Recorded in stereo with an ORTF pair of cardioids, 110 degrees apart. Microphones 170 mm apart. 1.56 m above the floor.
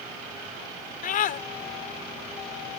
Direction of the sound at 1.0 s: 55° left.